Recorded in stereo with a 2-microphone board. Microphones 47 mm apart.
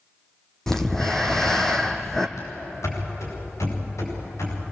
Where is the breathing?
10° left (ahead or behind), 1.8 m.